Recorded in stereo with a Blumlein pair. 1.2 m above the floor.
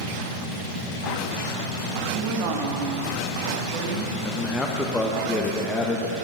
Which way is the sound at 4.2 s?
10° left.